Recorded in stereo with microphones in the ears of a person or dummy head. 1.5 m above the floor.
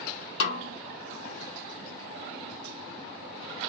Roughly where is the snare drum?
Left.